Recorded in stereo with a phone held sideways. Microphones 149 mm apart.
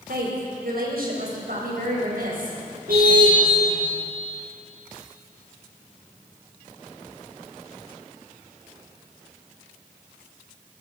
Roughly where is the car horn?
Right.